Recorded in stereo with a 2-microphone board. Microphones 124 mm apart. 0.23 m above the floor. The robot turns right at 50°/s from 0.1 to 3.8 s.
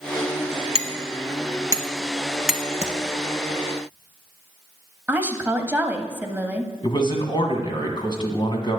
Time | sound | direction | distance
0.8 | hammering | 55° right (ahead or behind) | 1.0 m
2.8 | tapping | 60° left (ahead or behind) | 1.3 m
5.1 | a woman speaking | 15° right (ahead or behind) | 0.9 m
6.8 | a man speaking | 40° left (ahead or behind) | 1.8 m